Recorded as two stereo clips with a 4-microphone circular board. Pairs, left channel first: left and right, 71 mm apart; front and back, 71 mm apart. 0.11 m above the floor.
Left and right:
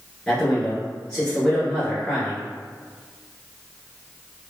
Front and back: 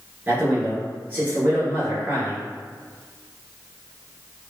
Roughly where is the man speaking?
Behind.